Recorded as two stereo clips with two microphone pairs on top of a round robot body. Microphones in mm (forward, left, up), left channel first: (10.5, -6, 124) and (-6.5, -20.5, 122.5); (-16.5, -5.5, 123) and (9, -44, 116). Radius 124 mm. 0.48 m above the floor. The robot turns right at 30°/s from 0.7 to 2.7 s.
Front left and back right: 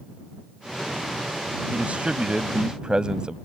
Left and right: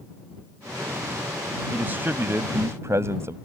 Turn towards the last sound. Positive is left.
turn(degrees=-85)